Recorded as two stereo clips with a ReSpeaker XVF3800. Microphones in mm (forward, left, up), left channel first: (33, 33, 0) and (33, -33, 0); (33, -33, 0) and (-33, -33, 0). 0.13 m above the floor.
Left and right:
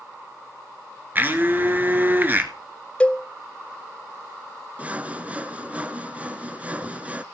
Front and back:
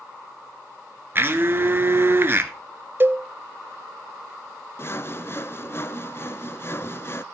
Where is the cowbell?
150° left, 0.7 m.